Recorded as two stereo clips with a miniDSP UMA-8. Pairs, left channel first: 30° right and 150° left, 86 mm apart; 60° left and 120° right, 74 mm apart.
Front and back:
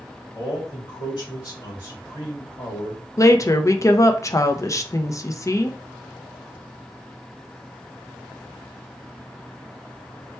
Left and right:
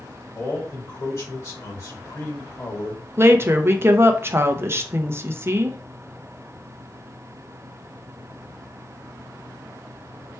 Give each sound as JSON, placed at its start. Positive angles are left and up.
{"t": 0.3, "sound": "a man speaking", "azimuth_deg": 15, "distance_m": 2.5}
{"t": 3.2, "sound": "a woman speaking", "azimuth_deg": -70, "distance_m": 0.6}